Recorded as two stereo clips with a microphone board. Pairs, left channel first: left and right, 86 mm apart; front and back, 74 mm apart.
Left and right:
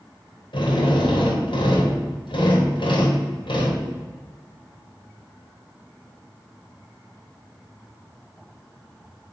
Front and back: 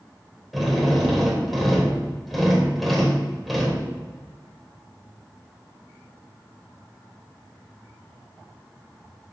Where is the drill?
90° left, 2.5 m.